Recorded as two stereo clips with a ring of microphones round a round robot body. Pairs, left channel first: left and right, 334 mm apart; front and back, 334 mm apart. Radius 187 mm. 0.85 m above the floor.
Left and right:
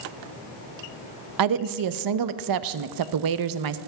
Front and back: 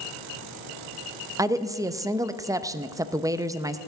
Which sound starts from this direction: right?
A woman speaking, at 1.4 s.